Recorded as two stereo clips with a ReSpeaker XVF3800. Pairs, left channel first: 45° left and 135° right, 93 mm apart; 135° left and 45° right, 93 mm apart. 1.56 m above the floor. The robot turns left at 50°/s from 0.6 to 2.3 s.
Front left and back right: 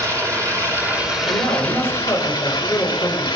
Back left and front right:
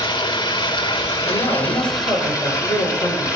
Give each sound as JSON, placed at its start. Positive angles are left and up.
{"t": 0.0, "sound": "running water", "azimuth_deg": 170, "distance_m": 3.0}
{"t": 1.3, "sound": "a man speaking", "azimuth_deg": 175, "distance_m": 7.0}